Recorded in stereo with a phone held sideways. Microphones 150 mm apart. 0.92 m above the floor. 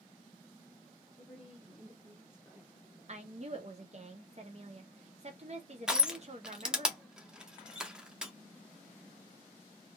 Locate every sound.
1.2 s a woman speaking: 5° right (ahead or behind), 0.8 m
3.1 s a woman speaking: 45° right (ahead or behind), 0.6 m
5.9 s crushing: 5° right (ahead or behind), 0.5 m